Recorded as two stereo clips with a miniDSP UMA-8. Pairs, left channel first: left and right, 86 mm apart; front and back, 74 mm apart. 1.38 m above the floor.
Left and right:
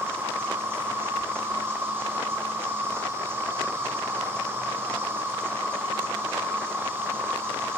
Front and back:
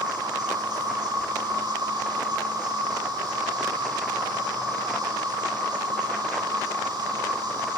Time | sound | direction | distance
0.0 | an insect | 155° right | 2.0 m